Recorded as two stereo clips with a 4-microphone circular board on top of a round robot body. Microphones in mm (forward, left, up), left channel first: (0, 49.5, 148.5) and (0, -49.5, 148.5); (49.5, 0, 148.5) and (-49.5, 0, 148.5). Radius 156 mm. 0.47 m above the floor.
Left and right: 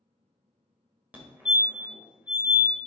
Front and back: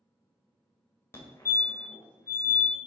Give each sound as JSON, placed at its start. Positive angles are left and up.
{"t": 1.1, "sound": "a fire alarm", "azimuth_deg": -35, "distance_m": 2.0}